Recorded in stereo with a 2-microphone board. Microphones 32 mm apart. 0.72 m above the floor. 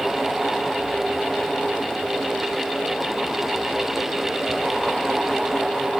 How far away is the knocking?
I don't hear knocking.